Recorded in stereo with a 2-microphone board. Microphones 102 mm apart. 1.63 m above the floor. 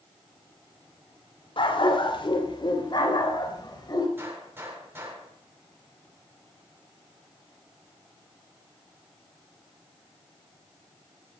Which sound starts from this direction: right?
A gunshot, at 4.2 s.